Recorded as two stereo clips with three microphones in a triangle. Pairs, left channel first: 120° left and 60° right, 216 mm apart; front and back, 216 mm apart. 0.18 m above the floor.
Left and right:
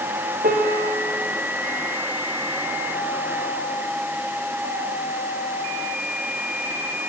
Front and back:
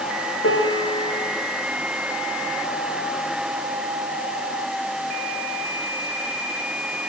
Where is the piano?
10° right, 4.5 m.